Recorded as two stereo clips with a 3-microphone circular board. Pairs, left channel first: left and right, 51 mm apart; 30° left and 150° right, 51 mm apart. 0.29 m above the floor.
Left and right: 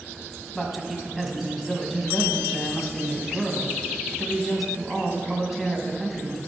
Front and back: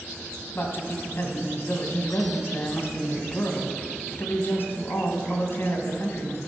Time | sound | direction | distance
0.6 | a man speaking | 5° right | 1.8 m